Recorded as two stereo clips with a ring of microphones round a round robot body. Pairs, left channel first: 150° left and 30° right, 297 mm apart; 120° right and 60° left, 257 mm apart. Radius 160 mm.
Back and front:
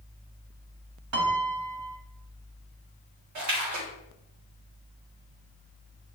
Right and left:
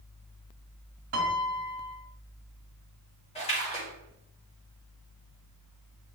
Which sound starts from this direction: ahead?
A piano, at 1.1 s.